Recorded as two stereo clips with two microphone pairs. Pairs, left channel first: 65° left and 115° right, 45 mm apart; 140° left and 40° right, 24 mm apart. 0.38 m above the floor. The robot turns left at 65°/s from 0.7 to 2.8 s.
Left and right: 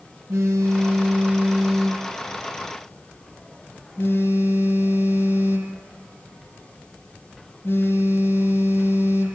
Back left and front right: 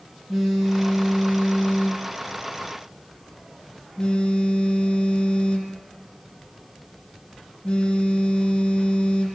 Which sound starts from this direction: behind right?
A phone buzzing, at 0.3 s.